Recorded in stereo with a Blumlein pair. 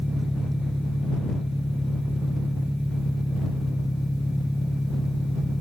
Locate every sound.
0.0 s an engine running: straight ahead